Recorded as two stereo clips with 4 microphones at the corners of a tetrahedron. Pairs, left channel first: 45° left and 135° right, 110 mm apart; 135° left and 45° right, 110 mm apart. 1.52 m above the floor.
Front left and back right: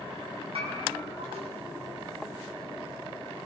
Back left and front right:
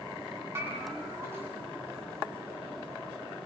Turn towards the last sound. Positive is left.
turn(degrees=-110)